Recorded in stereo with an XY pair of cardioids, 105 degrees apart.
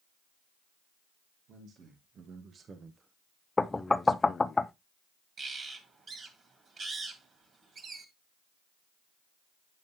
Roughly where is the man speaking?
Ahead right.